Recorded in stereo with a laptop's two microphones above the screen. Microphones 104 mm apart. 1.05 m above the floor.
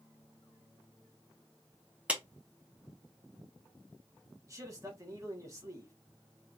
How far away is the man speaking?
About 1.0 m.